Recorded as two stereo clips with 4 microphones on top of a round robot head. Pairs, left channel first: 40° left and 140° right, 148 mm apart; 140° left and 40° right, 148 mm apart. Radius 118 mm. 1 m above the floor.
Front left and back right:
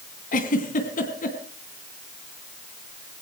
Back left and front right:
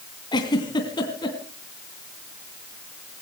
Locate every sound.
0.3 s a giggle: 75° left, 3 m